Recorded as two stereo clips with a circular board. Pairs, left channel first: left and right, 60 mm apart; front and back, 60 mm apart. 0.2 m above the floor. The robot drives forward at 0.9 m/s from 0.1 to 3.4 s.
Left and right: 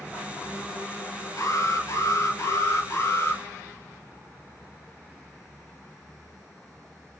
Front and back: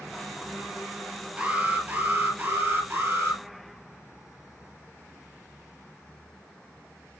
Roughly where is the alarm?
Left.